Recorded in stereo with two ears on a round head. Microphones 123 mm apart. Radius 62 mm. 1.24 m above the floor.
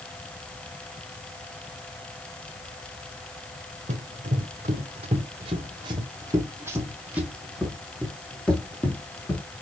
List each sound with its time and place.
3.9 s running footsteps: 55° right (ahead or behind), 2 m; by 9.4 s 15° left (ahead or behind), 2.5 m